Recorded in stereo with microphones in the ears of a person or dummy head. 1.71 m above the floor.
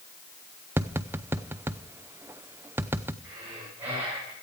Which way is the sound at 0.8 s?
10° right (ahead or behind).